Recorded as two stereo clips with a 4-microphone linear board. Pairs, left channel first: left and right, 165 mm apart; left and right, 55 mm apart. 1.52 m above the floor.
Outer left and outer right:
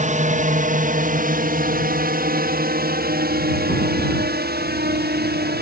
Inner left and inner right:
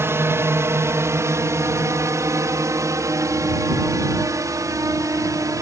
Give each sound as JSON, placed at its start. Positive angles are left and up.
{"t": 0.0, "sound": "a drone", "side_deg": -50}